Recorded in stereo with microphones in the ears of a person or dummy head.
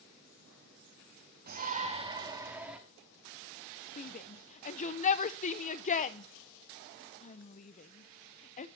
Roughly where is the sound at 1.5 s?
Right.